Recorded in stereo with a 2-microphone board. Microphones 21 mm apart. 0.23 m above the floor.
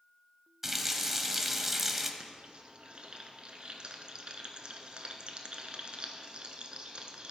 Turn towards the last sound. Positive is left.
turn(degrees=-55)  # may be behind; listen again after turning